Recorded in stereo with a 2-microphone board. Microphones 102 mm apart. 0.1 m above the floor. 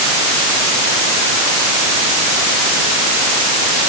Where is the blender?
I don't hear a blender.